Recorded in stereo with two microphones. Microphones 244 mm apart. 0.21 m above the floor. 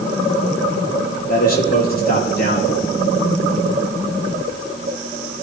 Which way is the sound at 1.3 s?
40° left (ahead or behind).